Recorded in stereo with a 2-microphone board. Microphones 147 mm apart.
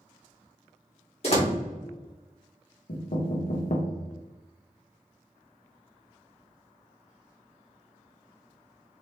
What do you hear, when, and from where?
1.2 s a door slam: 45° left (ahead or behind), 2.5 m
2.9 s knocking: 75° left (ahead or behind), 1.2 m